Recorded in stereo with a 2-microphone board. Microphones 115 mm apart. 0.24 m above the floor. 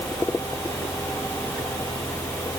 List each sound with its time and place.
Only background noise.